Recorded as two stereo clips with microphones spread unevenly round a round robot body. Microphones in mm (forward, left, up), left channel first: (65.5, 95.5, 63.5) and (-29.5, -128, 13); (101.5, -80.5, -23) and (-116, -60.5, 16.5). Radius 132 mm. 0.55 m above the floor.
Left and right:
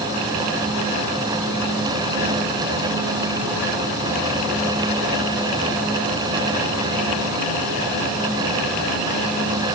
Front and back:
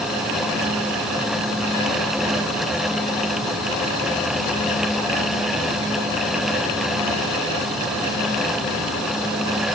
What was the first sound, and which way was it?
Only background noise.